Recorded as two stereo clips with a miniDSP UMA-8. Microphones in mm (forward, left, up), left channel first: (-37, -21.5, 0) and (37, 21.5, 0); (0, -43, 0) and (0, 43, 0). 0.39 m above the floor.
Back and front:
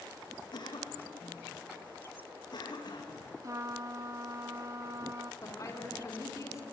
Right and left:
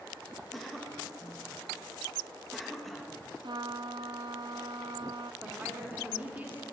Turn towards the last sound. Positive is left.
turn(degrees=155)